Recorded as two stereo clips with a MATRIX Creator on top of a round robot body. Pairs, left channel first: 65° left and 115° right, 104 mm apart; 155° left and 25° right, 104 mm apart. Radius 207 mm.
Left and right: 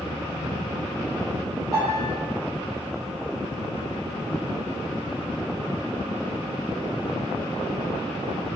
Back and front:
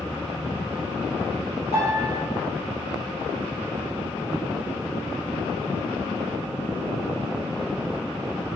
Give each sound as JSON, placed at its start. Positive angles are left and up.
{"t": 1.7, "sound": "a piano", "azimuth_deg": 140, "distance_m": 0.8}